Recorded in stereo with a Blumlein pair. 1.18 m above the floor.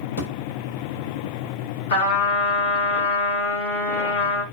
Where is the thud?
65° left, 1.8 m.